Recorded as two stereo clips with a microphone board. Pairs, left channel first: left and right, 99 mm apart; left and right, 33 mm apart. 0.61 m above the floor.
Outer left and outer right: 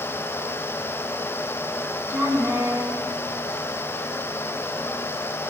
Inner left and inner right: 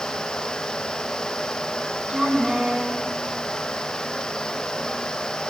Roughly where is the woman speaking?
Right.